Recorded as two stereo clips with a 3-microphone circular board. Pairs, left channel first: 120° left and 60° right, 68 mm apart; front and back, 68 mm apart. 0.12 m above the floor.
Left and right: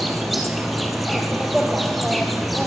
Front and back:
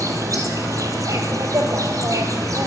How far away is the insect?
About 2 m.